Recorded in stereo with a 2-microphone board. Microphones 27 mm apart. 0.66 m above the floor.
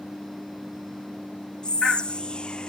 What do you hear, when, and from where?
1.6 s whispering: 35° left (ahead or behind), 0.6 m